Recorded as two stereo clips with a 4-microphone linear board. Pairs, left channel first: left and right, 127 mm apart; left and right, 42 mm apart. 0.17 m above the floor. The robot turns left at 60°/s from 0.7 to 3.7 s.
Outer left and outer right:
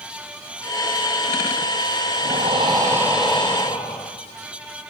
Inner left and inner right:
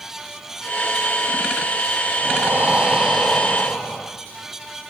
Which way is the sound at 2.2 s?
120° right.